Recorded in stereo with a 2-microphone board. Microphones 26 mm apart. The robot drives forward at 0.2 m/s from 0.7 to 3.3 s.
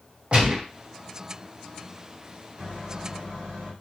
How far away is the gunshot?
About 1.0 m.